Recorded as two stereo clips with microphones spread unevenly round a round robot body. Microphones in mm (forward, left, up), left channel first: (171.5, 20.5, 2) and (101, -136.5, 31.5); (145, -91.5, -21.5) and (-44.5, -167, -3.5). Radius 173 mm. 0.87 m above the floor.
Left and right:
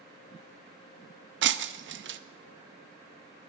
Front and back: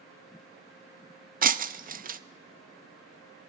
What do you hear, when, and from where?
1.4 s breaking glass: 105° right, 0.6 m